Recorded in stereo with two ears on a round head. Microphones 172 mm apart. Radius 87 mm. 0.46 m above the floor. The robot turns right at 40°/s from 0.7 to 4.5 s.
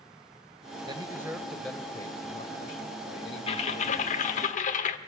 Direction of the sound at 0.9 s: 25° right.